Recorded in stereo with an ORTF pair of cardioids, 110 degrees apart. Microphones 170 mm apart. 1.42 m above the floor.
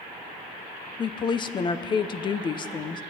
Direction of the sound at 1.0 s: 30° left.